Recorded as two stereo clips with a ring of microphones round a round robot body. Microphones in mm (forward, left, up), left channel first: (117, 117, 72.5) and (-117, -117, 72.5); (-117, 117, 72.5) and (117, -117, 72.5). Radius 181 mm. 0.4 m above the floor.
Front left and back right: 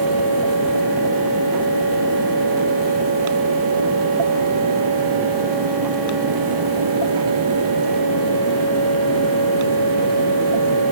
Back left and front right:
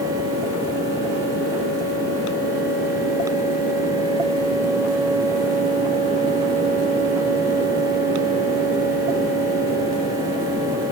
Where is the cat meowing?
I don't hear a cat meowing.